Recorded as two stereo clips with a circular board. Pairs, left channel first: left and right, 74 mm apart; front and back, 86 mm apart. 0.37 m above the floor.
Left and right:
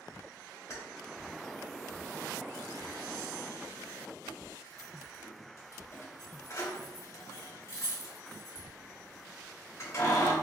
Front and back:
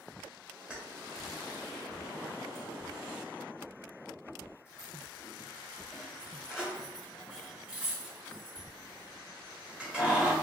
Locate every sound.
0.7 s keys jangling: 110° left, 0.9 m